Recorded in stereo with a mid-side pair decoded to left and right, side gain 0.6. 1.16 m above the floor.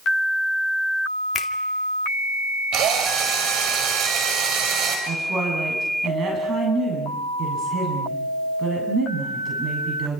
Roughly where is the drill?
Ahead right.